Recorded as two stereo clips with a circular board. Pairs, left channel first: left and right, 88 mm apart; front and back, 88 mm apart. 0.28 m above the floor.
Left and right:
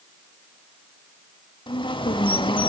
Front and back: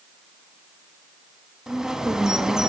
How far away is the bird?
About 0.8 m.